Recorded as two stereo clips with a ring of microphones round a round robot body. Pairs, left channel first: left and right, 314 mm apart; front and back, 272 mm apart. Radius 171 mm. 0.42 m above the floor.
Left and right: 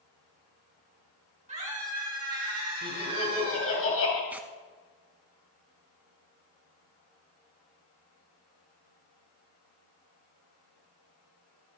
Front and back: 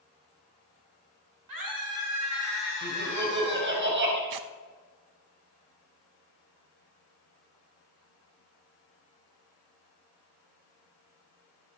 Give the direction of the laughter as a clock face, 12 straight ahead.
7 o'clock.